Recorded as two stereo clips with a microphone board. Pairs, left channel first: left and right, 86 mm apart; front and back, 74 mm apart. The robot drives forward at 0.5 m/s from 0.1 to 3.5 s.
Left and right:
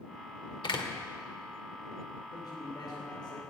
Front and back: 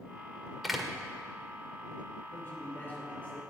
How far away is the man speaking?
About 3 m.